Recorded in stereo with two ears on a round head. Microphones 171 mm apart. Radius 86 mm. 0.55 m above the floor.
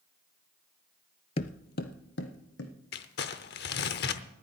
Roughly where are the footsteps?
Left.